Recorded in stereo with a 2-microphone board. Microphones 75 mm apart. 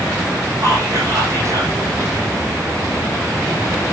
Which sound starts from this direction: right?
Whispering, at 0.6 s.